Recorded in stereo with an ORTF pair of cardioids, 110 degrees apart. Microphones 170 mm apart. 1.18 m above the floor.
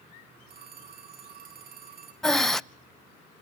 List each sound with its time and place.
0.5 s a phone ringing: 60° right, 8.5 m
2.2 s breathing: straight ahead, 0.5 m